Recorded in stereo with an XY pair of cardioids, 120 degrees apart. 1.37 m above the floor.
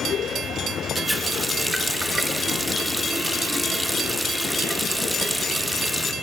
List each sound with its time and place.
0.9 s a running tap: straight ahead, 1.3 m